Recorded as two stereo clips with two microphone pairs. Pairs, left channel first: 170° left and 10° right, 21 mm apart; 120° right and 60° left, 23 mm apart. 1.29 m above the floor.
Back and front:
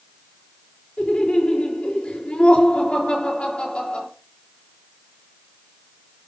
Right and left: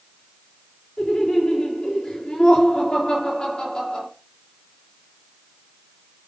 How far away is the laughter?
About 4 m.